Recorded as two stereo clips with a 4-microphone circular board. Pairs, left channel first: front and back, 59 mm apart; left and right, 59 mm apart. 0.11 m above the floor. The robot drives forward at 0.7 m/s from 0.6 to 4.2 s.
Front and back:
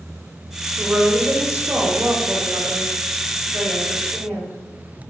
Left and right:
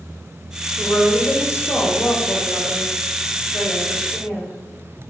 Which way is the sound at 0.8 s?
115° left.